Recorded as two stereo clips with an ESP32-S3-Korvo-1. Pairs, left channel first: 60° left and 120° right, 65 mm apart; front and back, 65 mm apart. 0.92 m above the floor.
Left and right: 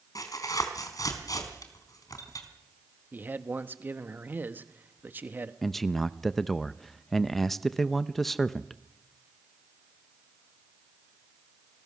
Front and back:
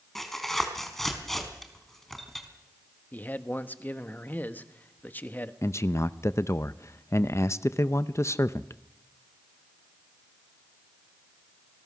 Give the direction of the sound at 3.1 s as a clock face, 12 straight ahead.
2 o'clock.